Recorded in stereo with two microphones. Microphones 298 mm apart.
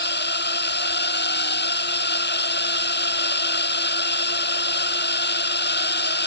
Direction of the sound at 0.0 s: 35° left (ahead or behind).